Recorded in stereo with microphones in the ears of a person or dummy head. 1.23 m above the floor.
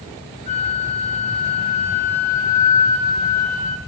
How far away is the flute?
About 3 m.